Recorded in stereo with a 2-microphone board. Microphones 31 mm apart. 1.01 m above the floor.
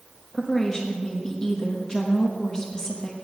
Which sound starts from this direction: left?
A woman speaking, at 0.3 s.